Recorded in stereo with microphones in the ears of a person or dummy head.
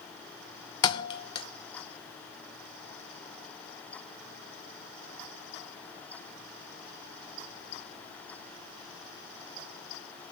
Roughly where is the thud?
Left.